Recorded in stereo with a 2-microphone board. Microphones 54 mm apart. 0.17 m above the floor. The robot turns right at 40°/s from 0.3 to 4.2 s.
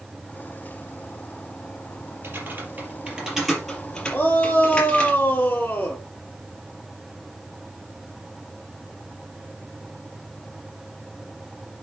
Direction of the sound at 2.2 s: 50° right (ahead or behind).